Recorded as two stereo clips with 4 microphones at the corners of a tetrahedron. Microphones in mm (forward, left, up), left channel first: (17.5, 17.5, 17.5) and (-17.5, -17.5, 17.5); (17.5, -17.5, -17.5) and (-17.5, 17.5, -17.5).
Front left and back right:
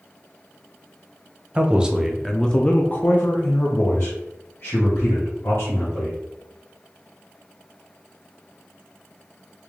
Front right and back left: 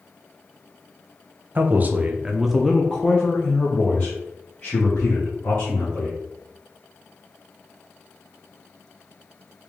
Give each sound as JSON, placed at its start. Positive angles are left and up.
{"t": 1.6, "sound": "a man speaking", "azimuth_deg": 165, "distance_m": 0.7}